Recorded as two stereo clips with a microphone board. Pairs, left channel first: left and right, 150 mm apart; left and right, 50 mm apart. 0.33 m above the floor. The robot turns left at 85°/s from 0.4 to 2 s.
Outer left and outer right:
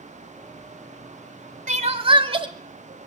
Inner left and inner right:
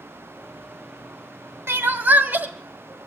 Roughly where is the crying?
Right.